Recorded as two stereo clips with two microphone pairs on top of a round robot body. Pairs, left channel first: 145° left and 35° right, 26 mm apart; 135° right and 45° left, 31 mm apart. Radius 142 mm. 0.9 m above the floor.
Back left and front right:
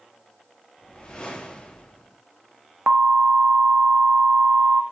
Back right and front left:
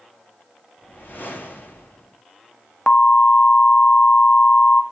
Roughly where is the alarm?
Right.